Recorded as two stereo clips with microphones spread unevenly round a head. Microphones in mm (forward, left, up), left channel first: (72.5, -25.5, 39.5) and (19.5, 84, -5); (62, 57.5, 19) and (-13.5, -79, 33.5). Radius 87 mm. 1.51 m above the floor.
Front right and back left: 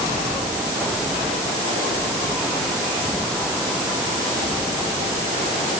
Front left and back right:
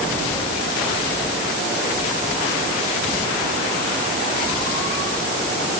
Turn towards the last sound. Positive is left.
No sound to turn to.